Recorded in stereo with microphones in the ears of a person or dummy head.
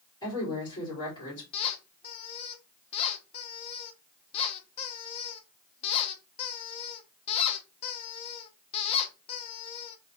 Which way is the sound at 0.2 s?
15° left (ahead or behind).